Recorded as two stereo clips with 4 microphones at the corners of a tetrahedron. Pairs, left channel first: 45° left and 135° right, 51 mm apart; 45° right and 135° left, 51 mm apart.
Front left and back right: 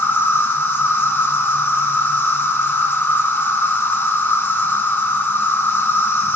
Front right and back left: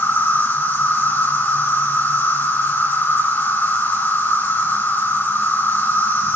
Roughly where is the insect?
Ahead.